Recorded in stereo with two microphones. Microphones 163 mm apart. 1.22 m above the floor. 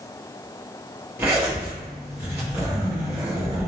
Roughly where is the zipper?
Centre.